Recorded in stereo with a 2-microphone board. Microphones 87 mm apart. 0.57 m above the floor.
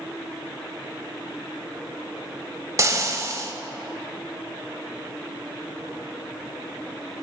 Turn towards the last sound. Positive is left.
turn(degrees=-35)  # may be behind; listen again after turning